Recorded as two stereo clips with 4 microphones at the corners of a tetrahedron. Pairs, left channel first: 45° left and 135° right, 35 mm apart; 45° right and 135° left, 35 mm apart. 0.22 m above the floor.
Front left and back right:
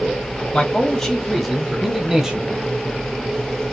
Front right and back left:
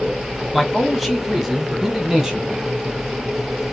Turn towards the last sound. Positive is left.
turn(degrees=-175)